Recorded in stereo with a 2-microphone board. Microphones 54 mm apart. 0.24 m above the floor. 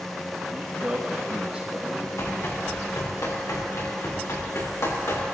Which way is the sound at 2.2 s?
80° left.